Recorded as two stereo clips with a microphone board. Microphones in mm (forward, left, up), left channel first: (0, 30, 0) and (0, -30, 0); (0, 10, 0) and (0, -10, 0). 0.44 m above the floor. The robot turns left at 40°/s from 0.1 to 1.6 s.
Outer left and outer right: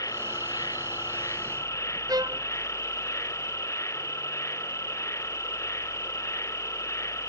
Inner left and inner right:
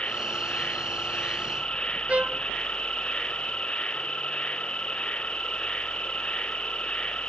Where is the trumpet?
90° right.